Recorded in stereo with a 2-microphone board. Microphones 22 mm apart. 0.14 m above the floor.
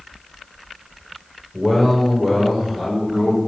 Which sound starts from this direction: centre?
A man speaking, at 1.5 s.